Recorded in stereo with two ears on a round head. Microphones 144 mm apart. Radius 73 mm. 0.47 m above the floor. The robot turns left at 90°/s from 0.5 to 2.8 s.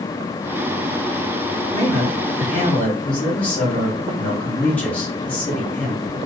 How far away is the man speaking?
About 1.7 m.